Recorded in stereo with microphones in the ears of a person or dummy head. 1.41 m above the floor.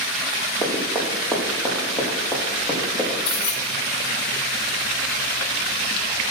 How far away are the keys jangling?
About 1.5 m.